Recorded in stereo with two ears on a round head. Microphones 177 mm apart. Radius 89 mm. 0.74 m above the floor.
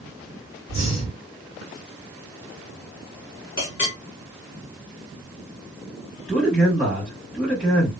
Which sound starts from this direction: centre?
A man speaking, at 6.3 s.